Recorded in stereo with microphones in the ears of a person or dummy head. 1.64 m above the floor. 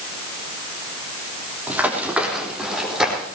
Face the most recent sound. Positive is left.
turn(degrees=-5)  # may be behind; listen again after turning